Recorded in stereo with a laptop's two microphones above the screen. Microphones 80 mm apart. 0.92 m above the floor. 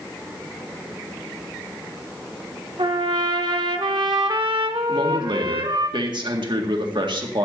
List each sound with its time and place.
2.8 s a trumpet: 75° right (ahead or behind), 1.1 m
4.9 s a man speaking: 70° right (ahead or behind), 1.8 m